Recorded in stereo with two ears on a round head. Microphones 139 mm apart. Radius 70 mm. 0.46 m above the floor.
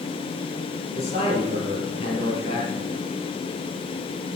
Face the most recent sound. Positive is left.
turn(degrees=45)  # may be behind; listen again after turning